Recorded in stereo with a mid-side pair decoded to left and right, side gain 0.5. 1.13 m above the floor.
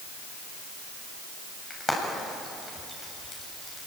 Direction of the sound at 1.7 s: 15° left.